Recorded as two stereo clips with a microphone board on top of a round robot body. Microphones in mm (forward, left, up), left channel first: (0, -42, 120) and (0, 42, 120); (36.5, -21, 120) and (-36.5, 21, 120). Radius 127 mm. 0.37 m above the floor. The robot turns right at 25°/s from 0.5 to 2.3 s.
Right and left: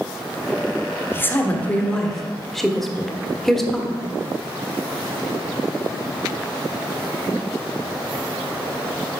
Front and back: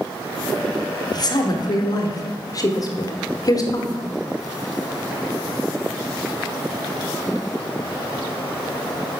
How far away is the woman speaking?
About 1.2 m.